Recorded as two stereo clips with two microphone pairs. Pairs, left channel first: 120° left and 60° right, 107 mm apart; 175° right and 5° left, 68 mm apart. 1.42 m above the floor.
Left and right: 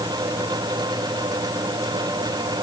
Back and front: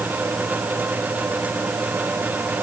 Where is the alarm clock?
I don't hear an alarm clock.